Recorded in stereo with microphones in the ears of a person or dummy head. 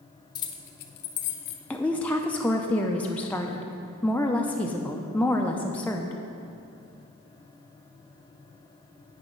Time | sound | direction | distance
0.3 | keys jangling | 20° left (ahead or behind) | 0.5 m
1.7 | a woman speaking | 10° left (ahead or behind) | 0.5 m